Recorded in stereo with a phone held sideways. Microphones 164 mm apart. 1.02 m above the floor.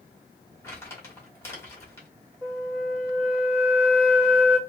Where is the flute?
10° right (ahead or behind), 1.3 m.